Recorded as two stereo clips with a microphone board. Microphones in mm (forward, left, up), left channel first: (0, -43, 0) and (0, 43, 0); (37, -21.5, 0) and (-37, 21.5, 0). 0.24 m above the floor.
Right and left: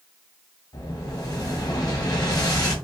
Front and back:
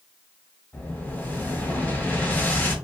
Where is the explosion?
90° right, 0.9 m.